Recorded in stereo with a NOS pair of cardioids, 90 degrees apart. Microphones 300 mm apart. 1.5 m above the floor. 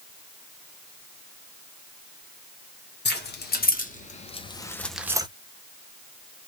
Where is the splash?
No splash in this recording.